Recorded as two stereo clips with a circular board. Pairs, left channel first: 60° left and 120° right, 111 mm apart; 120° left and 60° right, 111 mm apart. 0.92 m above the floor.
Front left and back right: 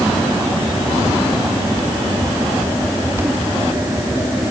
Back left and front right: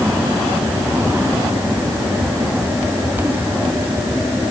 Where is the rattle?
No rattle in this recording.